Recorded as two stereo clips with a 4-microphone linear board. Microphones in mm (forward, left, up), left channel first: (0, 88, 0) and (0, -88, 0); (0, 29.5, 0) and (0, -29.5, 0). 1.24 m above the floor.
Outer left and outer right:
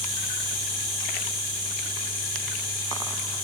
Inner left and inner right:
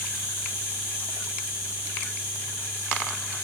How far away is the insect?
About 1.4 m.